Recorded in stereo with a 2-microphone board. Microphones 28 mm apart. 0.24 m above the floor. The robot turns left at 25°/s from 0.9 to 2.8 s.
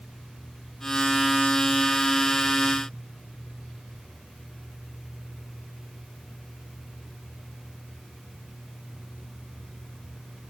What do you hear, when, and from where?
Only background noise.